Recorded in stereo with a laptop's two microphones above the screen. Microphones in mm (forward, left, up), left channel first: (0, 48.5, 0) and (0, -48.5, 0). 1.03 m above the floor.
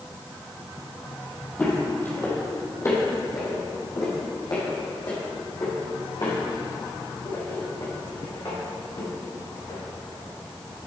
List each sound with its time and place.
1.6 s footsteps: 15° left (ahead or behind), 2 m; by 9.8 s 60° left (ahead or behind), 5.5 m